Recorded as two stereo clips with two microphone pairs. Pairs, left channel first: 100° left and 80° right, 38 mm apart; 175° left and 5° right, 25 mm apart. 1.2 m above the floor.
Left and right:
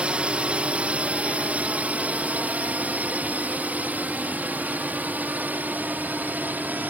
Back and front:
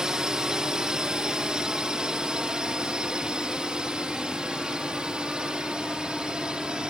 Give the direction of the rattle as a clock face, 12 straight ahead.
I don't hear a rattle.